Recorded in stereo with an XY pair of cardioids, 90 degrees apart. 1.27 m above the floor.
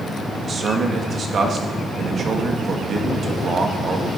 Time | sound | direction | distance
0.4 | a man speaking | 55° right | 2.5 m